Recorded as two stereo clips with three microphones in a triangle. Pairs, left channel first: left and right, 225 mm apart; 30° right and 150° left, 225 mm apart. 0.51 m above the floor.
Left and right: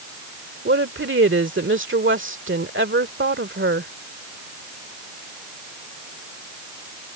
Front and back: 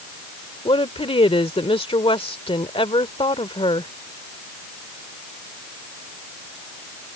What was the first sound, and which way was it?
A woman speaking, 90° right.